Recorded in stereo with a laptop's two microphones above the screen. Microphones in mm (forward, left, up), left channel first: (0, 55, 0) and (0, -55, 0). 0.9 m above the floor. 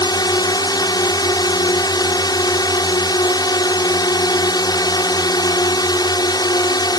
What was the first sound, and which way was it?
A drone, 35° left (ahead or behind).